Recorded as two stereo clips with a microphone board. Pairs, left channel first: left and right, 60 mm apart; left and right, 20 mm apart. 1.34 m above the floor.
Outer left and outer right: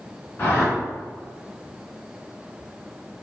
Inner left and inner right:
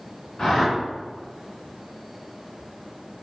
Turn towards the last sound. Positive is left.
turn(degrees=30)  # may be behind; listen again after turning